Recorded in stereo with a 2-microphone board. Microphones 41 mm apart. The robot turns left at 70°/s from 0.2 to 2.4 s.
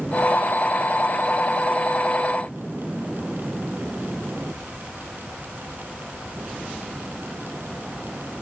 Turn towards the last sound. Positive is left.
No sound to turn to.